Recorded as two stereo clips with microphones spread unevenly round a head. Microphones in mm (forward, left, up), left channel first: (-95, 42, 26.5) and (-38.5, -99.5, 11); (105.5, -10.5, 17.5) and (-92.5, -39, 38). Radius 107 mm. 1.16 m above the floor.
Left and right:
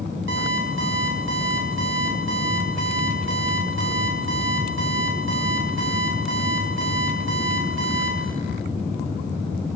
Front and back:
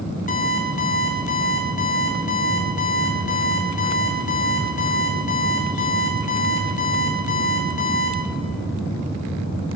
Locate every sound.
0.3 s an alarm clock: 45° right, 4 m